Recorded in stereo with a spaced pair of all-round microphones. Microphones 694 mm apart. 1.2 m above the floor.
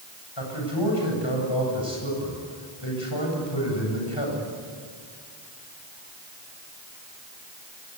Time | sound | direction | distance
0.4 | a man speaking | 40° left (ahead or behind) | 8.5 m